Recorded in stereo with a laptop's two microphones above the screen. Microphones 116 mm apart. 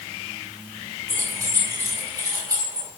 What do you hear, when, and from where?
1.1 s keys jangling: 30° right (ahead or behind), 6.5 m